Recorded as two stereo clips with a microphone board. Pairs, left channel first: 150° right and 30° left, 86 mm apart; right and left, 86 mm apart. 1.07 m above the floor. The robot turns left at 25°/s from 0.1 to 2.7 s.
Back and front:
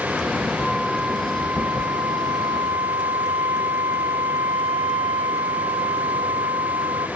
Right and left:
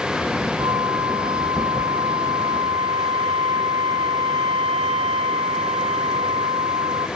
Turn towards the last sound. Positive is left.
turn(degrees=80)